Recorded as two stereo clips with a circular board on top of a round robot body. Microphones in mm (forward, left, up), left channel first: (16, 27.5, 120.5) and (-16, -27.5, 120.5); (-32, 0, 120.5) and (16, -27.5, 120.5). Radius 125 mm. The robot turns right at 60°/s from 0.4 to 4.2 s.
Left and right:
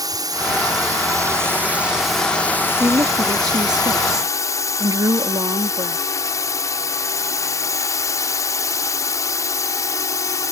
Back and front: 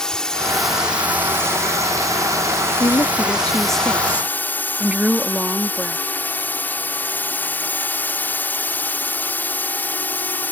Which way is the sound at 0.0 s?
135° right.